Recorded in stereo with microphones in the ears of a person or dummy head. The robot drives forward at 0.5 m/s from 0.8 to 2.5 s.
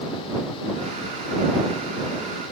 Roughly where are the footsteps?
No footsteps in this recording.